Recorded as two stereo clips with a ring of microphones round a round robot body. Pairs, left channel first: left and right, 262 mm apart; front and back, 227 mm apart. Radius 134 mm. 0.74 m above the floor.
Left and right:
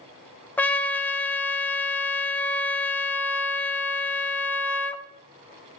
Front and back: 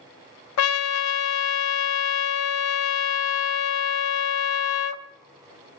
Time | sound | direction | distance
0.6 | a trumpet | 5° left | 0.8 m